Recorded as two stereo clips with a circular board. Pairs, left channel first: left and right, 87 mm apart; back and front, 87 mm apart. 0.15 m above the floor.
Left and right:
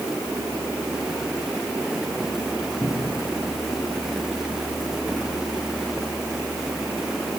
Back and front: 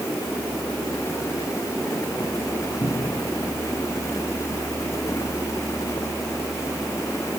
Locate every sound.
2.8 s a cupboard door: 165° left, 5.5 m